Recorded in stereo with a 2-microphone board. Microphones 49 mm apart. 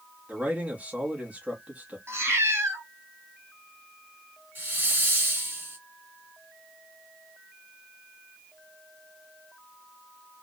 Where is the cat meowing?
55° right (ahead or behind), 1.5 m.